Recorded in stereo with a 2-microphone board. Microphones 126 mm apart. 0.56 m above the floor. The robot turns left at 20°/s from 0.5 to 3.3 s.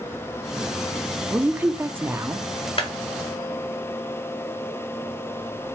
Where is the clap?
50° left (ahead or behind), 1.6 m.